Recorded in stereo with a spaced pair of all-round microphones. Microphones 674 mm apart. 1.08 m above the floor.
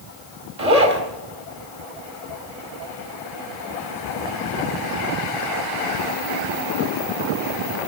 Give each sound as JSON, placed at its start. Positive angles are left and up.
{"t": 0.6, "sound": "a zipper", "side_deg": -60, "distance_m": 2.5}